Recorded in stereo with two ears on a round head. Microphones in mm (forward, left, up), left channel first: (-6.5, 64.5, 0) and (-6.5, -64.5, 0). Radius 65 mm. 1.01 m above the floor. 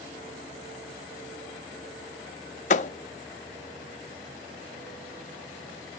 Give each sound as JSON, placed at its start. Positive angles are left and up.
{"t": 2.7, "sound": "a thud", "side_deg": 50, "distance_m": 0.5}